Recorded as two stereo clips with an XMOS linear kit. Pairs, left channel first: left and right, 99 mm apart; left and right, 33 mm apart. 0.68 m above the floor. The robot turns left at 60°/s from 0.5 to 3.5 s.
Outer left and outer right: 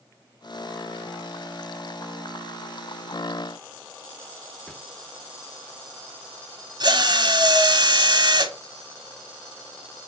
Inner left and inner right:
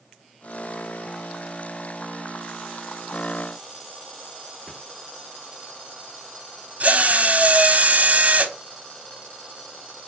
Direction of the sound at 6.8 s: 45° right (ahead or behind).